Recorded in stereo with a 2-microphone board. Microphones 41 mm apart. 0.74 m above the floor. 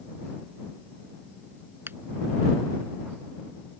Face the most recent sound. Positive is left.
turn(degrees=-55)  # may be behind; listen again after turning